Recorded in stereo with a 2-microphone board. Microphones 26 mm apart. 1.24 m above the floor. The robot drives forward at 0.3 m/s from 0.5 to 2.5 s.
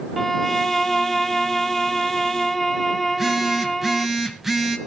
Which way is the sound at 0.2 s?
10° left (ahead or behind).